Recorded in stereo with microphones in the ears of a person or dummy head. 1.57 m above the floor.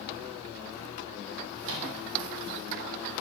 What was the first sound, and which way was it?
A microwave, 70° right (ahead or behind).